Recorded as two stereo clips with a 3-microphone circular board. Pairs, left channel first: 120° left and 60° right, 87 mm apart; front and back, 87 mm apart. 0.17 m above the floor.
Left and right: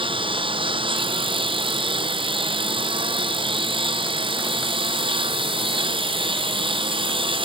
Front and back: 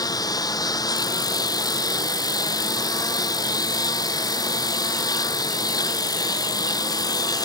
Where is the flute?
No flute in this recording.